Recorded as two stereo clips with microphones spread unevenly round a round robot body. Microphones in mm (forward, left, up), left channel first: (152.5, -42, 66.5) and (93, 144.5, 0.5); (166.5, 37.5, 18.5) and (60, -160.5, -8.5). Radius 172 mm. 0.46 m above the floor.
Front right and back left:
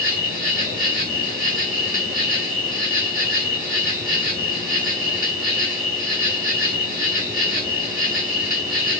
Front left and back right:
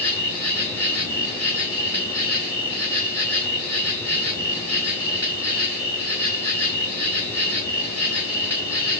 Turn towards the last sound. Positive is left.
turn(degrees=-25)